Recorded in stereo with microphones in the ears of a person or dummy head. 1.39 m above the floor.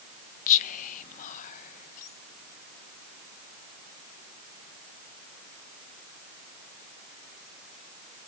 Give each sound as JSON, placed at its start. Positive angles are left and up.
{"t": 0.5, "sound": "whispering", "side_deg": 40, "distance_m": 0.8}